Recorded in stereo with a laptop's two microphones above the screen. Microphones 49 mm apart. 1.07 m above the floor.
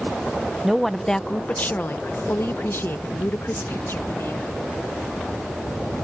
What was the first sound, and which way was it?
A woman speaking, 5° right (ahead or behind).